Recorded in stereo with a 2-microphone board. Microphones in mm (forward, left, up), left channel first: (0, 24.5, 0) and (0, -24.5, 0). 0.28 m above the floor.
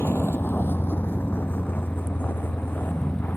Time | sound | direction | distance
0.0 | a vehicle | 55° left (ahead or behind) | ?